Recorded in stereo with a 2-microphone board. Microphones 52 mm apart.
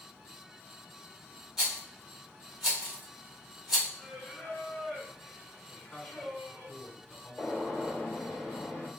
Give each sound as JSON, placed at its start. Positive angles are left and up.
{"t": 1.6, "sound": "a rattle", "side_deg": -10, "distance_m": 1.3}
{"t": 4.0, "sound": "singing", "side_deg": 25, "distance_m": 1.2}
{"t": 5.7, "sound": "a man speaking", "side_deg": 5, "distance_m": 1.3}
{"t": 7.4, "sound": "a gunshot", "side_deg": 0, "distance_m": 1.8}